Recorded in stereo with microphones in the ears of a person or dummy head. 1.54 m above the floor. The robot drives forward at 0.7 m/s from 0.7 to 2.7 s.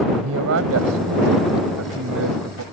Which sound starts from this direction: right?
A man speaking, at 0.1 s.